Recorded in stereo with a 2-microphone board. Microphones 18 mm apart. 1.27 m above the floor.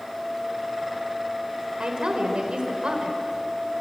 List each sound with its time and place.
1.8 s a woman speaking: 65° right (ahead or behind), 4.5 m